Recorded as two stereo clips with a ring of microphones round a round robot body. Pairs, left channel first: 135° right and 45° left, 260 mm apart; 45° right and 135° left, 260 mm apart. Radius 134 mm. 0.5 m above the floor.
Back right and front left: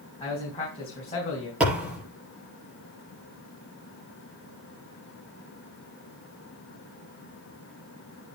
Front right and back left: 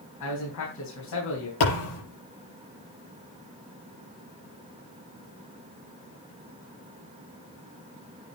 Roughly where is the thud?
Ahead right.